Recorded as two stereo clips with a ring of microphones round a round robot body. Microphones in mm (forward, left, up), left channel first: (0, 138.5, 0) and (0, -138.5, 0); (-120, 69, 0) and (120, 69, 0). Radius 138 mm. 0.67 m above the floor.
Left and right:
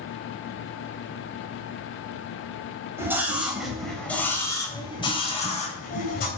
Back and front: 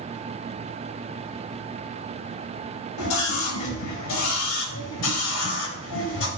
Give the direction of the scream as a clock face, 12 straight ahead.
6 o'clock.